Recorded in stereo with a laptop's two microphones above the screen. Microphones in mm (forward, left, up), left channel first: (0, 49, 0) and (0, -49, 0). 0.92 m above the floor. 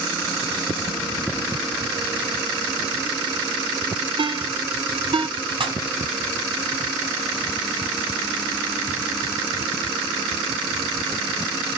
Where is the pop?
60° right (ahead or behind), 3 m.